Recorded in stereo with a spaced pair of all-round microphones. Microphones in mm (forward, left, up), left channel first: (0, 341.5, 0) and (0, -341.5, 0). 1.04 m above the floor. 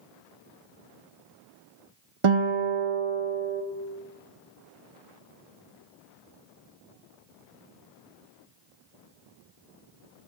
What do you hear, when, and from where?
2.2 s a guitar: 45° right (ahead or behind), 0.8 m